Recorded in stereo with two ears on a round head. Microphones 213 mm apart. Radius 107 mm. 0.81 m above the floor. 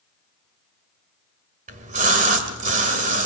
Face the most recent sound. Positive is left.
turn(degrees=-30)  # may be behind; listen again after turning